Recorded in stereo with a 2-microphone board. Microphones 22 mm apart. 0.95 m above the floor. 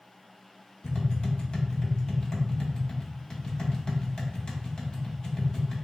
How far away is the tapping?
About 0.8 m.